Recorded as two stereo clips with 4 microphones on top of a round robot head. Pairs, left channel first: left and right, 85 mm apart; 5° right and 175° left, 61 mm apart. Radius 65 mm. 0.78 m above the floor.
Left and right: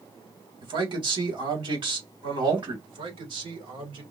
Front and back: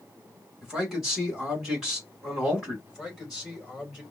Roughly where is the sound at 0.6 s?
Right.